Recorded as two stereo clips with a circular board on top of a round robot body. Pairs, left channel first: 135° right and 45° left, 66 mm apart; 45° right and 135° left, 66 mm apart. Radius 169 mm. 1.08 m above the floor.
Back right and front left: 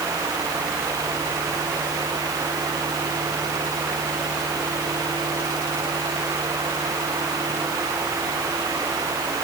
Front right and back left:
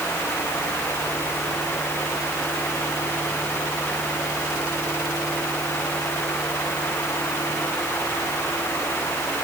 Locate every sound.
Only background noise.